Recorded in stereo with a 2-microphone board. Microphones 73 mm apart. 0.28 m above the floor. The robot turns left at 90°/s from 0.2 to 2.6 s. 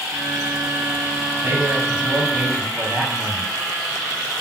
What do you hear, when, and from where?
1.4 s a man speaking: 50° right, 2.0 m; by 3.5 s 155° right, 2.0 m